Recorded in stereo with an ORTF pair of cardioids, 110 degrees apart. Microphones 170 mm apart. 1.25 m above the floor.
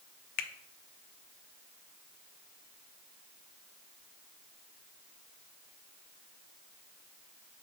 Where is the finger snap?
70° left, 0.7 m.